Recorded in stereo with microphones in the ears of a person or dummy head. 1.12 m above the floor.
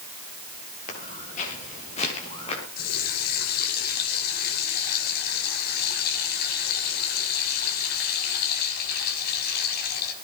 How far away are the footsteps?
About 7 m.